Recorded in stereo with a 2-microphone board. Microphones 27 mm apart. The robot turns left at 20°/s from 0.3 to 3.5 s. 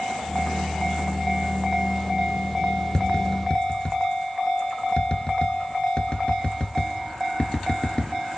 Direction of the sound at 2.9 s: 25° left (ahead or behind).